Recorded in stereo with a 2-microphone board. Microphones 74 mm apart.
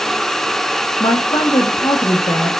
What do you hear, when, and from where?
1.0 s a woman speaking: 85° left, 1.2 m